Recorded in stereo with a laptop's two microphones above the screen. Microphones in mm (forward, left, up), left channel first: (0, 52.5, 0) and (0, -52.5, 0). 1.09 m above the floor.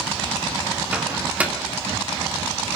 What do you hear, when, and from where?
0.9 s a microwave: 15° right (ahead or behind), 1.7 m